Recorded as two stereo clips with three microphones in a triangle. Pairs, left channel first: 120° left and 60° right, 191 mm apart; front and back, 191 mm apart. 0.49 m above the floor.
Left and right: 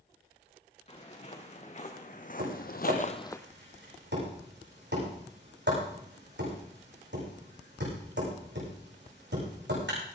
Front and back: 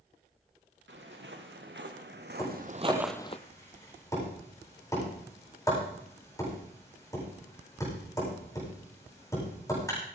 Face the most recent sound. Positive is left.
turn(degrees=-70)